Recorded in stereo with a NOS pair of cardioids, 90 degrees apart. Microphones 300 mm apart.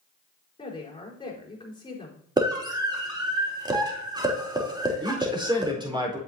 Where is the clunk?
I don't hear a clunk.